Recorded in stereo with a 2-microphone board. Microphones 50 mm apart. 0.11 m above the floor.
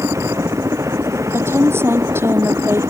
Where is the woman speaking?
55° right (ahead or behind).